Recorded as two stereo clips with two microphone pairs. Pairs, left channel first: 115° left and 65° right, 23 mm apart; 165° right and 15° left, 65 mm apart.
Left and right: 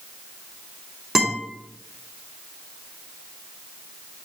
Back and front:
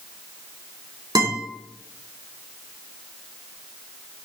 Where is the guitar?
10° left, 3 m.